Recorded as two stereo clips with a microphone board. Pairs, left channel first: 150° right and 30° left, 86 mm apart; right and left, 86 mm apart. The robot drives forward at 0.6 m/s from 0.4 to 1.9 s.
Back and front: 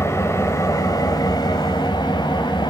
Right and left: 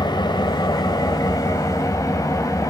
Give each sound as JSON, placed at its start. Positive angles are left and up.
{"t": 0.0, "sound": "an engine running", "azimuth_deg": -100, "distance_m": 1.4}